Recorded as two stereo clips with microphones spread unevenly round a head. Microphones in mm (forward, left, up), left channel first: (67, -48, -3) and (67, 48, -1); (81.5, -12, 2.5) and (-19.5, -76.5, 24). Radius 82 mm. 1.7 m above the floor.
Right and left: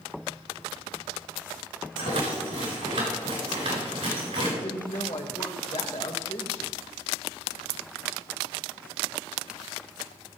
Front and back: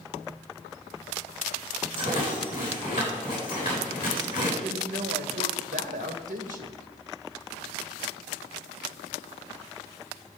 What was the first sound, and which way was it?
A rattle, 95° left.